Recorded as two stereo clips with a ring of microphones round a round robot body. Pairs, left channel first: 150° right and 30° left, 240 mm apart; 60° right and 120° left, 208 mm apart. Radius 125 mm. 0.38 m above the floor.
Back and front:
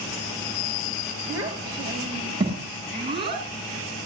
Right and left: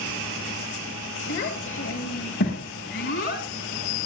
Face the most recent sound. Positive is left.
turn(degrees=-35)